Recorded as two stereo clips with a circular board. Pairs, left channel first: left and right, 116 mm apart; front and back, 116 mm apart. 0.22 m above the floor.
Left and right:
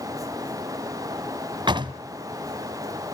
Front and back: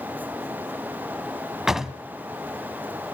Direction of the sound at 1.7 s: 95° right.